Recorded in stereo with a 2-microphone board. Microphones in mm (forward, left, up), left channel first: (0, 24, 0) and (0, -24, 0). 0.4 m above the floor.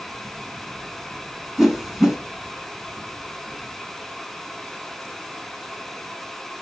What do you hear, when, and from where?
1.6 s a whoosh: 5° right (ahead or behind), 1.4 m